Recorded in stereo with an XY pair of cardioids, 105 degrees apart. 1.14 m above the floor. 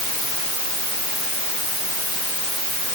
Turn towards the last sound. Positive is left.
No sound to turn to.